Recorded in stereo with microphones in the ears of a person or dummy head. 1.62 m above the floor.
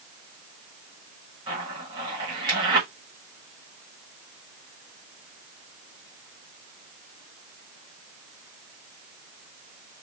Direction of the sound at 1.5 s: 25° right (ahead or behind).